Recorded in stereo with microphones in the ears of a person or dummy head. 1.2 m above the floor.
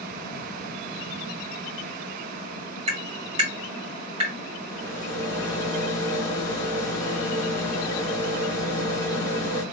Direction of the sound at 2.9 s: 30° right (ahead or behind).